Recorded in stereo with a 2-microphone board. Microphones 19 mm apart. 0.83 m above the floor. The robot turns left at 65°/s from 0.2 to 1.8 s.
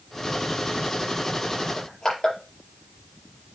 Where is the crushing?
35° left (ahead or behind), 5 m.